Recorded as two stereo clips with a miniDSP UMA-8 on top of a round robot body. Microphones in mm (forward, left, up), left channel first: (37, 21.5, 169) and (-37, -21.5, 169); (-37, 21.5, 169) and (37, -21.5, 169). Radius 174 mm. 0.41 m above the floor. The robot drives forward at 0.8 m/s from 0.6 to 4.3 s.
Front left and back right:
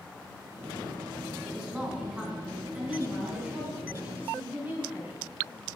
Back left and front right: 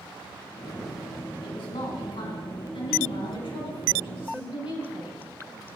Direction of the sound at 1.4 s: 130° left.